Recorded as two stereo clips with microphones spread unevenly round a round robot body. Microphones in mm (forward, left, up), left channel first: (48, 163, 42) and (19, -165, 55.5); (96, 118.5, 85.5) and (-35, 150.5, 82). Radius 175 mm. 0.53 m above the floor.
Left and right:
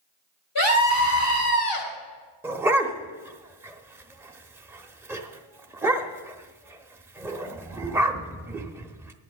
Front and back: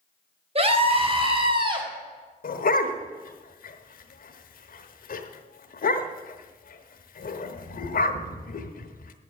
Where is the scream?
125° left, 4 m; by 1.9 s 115° left, 3.5 m.